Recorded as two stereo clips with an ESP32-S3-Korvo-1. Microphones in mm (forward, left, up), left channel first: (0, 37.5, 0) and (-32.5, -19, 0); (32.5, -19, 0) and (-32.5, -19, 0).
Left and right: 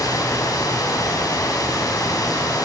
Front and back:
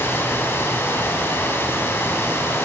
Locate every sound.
0.0 s running water: 50° left, 5 m